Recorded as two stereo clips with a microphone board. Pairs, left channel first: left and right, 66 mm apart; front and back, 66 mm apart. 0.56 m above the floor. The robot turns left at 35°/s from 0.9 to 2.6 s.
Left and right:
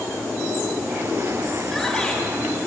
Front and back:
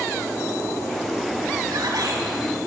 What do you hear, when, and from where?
1.6 s a shout: straight behind, 5 m; by 2.2 s 160° left, 5 m